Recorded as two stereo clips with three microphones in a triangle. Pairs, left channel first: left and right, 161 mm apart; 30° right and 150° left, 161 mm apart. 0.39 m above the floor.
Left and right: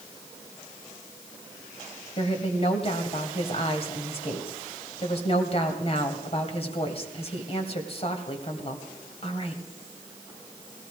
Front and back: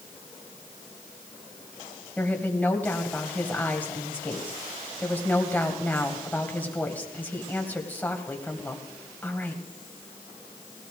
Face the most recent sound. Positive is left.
turn(degrees=45)